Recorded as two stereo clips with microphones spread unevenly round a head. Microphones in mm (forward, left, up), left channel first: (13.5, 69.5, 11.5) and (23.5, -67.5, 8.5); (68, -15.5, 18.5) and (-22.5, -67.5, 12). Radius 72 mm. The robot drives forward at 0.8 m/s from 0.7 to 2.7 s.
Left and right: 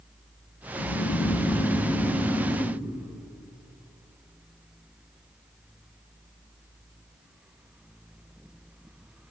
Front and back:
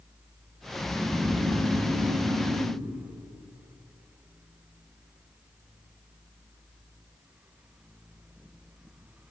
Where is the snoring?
105° left, 0.5 m; by 2.8 s 165° left, 1.7 m.